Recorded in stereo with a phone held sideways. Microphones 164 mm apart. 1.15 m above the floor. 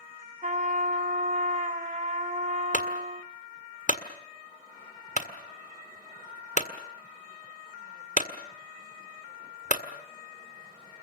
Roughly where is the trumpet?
Right.